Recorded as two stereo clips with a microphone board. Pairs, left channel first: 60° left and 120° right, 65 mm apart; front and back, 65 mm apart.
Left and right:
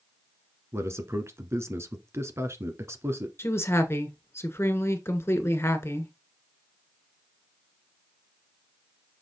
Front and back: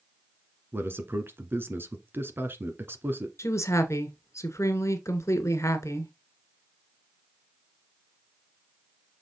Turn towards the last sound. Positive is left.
turn(degrees=25)